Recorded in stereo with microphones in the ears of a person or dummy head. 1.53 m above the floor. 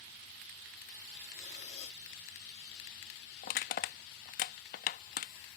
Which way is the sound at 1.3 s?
40° left (ahead or behind).